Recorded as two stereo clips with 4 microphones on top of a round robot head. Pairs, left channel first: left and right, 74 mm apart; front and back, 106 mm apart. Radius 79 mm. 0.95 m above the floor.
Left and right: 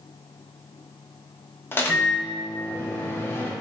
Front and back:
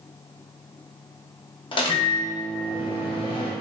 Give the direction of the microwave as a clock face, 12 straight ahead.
11 o'clock.